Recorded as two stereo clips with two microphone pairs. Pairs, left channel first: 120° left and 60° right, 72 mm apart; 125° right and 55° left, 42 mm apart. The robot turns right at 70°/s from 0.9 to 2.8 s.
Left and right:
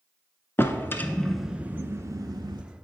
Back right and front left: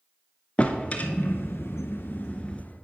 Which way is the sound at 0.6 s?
175° left.